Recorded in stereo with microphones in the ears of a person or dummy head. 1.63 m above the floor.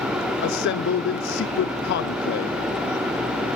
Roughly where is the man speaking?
Left.